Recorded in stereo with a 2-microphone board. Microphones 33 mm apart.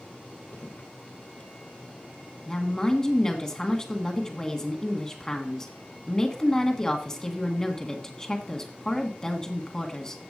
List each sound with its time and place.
0.5 s footsteps: 55° left (ahead or behind), 2 m
2.5 s a woman speaking: 20° left (ahead or behind), 1.6 m